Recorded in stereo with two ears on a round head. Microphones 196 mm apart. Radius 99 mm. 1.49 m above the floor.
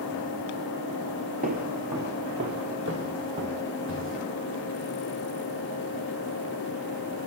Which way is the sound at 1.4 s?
40° right (ahead or behind).